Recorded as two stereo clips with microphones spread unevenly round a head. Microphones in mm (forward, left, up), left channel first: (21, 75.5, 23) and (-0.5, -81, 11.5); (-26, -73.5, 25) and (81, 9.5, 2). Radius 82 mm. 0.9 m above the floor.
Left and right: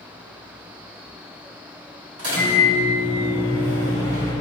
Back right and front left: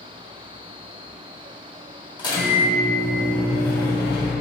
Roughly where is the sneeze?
No sneeze in this recording.